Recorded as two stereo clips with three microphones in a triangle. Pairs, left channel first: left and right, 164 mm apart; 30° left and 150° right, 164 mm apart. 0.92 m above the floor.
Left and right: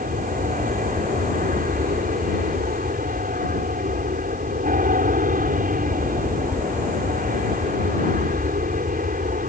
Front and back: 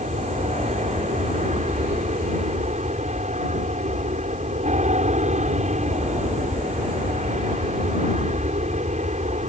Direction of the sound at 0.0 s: 115° right.